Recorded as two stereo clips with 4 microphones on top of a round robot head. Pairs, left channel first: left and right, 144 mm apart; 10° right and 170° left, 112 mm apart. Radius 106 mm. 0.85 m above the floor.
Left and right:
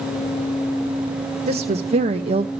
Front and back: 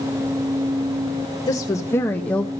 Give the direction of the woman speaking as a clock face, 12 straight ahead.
2 o'clock.